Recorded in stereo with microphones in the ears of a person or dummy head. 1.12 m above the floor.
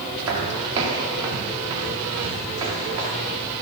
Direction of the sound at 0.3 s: 20° right (ahead or behind).